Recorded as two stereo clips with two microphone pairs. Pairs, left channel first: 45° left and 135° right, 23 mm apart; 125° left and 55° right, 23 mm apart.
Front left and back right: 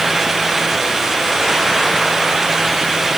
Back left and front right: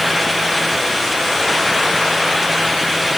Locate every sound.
Only background noise.